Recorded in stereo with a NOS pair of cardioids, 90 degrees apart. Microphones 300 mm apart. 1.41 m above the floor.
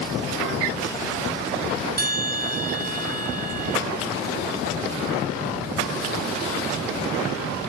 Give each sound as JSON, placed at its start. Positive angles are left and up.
{"t": 2.0, "sound": "a bell", "azimuth_deg": -30, "distance_m": 2.0}